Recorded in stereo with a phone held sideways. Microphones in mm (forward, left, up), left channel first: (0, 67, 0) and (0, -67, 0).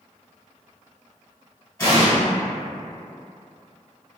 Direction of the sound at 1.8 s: 20° left (ahead or behind).